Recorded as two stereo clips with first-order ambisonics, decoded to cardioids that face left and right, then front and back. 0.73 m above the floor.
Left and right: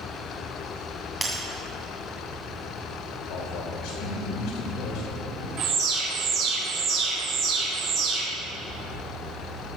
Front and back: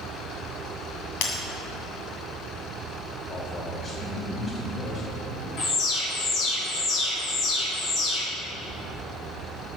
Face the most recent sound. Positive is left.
turn(degrees=-50)